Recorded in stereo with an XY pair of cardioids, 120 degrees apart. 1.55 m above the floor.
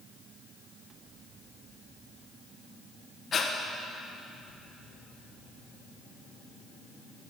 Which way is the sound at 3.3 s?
40° left.